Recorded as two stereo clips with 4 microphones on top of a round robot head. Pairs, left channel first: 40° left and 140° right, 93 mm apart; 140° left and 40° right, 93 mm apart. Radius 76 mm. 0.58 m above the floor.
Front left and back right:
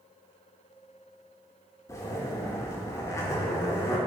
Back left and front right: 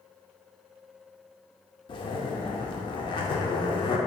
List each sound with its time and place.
1.9 s a zipper: 100° left, 0.5 m